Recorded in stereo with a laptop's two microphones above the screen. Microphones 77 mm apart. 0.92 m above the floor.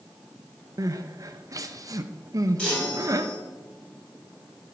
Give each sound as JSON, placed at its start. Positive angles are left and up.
{"t": 0.8, "sound": "crying", "side_deg": -45, "distance_m": 0.5}
{"t": 2.6, "sound": "a chime", "side_deg": 15, "distance_m": 4.5}